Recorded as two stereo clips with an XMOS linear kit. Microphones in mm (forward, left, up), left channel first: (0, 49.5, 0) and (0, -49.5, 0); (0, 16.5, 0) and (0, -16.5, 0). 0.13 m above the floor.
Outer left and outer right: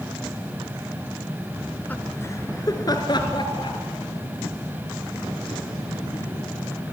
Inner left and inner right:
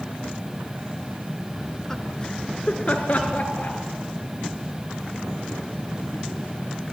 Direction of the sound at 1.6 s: 5° left (ahead or behind).